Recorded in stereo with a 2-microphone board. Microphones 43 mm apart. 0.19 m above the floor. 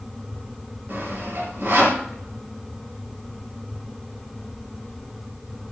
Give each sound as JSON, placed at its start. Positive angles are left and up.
{"t": 0.9, "sound": "sawing", "side_deg": -40, "distance_m": 2.5}